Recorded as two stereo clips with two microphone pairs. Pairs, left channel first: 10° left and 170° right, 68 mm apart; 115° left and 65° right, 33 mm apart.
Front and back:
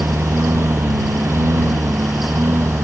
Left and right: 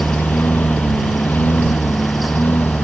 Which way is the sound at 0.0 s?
140° left.